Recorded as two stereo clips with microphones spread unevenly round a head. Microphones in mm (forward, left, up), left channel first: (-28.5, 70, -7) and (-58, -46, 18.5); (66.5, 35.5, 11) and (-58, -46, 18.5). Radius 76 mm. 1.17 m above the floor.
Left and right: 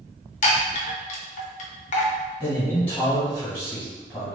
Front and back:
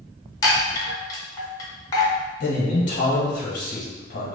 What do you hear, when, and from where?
0.4 s a chime: 105° left, 0.8 m
2.4 s a man speaking: 5° left, 1.2 m